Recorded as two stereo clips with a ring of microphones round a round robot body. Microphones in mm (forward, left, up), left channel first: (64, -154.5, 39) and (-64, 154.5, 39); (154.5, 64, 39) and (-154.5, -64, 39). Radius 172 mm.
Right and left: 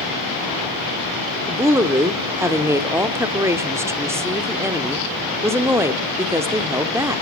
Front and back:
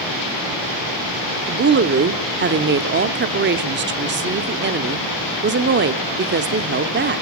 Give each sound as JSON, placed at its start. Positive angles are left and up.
{"t": 1.5, "sound": "a woman speaking", "azimuth_deg": -170, "distance_m": 0.8}